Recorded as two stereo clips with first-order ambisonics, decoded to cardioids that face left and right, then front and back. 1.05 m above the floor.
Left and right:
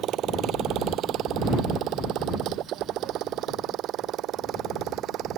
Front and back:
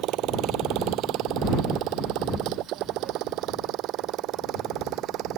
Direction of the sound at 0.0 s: 140° right.